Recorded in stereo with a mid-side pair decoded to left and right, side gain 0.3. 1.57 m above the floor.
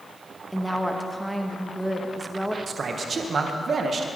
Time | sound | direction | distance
0.5 | a woman speaking | 5° right | 2 m
2.7 | a man speaking | 60° right | 1.6 m